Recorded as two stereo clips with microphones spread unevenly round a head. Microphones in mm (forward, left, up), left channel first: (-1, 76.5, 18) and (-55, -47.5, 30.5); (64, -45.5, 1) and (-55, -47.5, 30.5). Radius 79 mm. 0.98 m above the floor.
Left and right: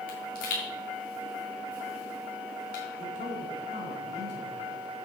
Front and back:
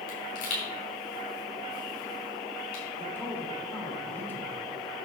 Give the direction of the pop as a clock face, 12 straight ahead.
11 o'clock.